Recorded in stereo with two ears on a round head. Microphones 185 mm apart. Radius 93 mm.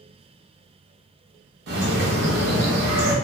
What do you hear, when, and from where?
1.7 s a bird: 45° right (ahead or behind), 0.7 m